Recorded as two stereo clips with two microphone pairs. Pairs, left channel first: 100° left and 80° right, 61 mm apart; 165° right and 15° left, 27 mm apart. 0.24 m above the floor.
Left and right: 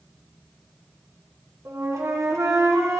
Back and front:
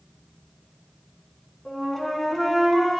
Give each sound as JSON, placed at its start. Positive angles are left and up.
{"t": 1.6, "sound": "a flute", "azimuth_deg": -85, "distance_m": 1.8}